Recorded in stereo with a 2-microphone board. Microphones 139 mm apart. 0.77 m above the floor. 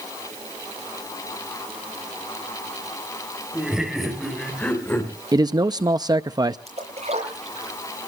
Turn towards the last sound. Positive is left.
turn(degrees=-50)  # may be behind; listen again after turning